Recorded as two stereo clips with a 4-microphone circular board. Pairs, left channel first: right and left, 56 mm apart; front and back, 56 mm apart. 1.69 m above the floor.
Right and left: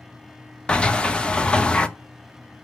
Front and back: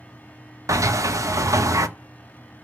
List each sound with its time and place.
0.7 s a sliding door: 165° right, 0.7 m